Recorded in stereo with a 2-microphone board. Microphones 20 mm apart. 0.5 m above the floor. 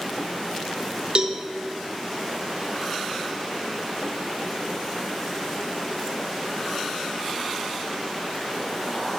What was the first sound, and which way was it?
A cowbell, 45° right (ahead or behind).